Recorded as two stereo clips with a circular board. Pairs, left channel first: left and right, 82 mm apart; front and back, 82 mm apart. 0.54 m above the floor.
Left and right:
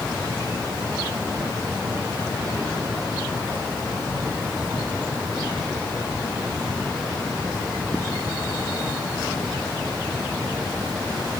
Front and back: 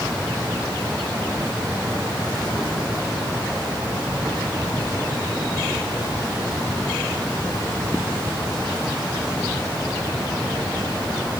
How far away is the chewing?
No chewing in this recording.